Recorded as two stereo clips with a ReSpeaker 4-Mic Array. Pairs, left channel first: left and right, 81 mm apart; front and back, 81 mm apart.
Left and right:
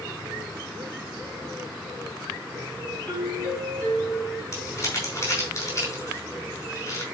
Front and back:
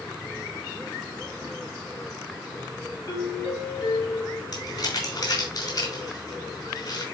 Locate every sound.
3.1 s a doorbell: 15° left, 6.5 m
4.5 s crumpling: 35° left, 5.5 m